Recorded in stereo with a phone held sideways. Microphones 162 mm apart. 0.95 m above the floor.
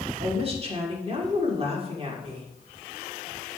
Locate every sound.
0.2 s a woman speaking: 35° right (ahead or behind), 2 m